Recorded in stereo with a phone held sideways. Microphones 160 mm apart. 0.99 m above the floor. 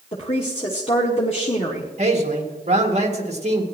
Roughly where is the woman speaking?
Left.